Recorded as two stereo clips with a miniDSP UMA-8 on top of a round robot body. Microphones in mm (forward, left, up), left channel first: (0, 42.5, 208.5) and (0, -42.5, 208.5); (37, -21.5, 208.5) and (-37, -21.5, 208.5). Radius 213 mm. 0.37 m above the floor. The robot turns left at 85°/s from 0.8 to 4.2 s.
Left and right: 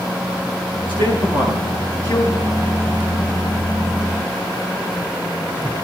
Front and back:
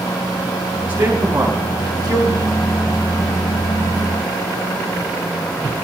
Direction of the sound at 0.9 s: 110° right.